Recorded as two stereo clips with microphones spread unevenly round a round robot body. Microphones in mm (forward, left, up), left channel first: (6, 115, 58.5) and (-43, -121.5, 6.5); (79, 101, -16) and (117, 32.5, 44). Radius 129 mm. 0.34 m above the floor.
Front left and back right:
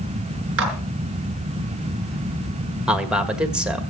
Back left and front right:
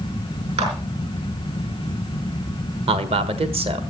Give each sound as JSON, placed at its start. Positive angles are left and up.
{"t": 0.6, "sound": "a clap", "azimuth_deg": -65, "distance_m": 4.5}
{"t": 2.9, "sound": "a man speaking", "azimuth_deg": -45, "distance_m": 1.5}